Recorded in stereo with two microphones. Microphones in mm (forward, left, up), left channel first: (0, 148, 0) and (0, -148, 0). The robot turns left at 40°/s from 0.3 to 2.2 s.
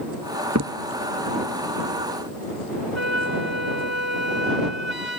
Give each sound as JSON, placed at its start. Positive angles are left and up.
{"t": 0.6, "sound": "a crack", "side_deg": -65}
{"t": 3.0, "sound": "a flute", "side_deg": 65}